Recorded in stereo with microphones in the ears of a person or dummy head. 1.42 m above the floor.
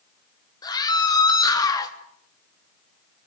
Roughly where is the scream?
Left.